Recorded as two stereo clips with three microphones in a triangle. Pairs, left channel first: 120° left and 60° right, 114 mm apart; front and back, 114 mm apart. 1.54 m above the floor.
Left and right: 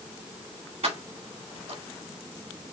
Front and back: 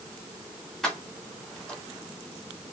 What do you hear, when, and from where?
0.8 s keys jangling: 85° right, 3.5 m